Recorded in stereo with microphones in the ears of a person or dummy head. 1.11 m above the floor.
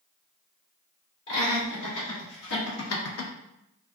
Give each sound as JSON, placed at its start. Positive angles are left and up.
{"t": 1.3, "sound": "laughter", "side_deg": 70, "distance_m": 1.9}